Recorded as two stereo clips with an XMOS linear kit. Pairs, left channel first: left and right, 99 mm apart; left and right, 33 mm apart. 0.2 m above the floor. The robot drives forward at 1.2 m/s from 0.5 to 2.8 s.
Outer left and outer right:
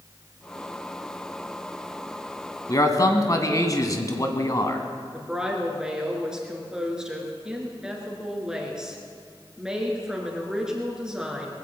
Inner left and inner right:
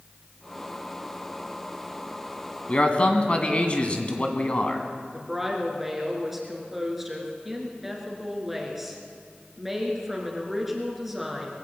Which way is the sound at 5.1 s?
5° right (ahead or behind).